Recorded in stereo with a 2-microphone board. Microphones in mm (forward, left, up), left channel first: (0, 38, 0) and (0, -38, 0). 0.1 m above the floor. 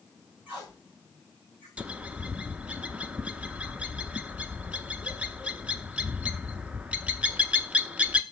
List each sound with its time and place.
0.5 s tape being pulled: 20° right (ahead or behind), 5.5 m
1.8 s a bird: 15° right (ahead or behind), 0.5 m